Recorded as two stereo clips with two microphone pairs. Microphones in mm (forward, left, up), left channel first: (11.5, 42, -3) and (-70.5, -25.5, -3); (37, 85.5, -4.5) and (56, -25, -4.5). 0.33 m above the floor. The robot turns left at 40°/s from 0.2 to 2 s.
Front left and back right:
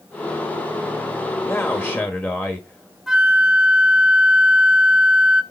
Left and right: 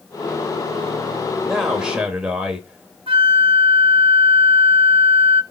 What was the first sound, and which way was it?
A man speaking, 10° left.